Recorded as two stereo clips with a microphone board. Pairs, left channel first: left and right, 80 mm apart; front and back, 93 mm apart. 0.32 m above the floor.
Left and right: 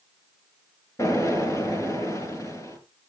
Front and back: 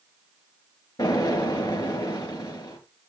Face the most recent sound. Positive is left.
turn(degrees=40)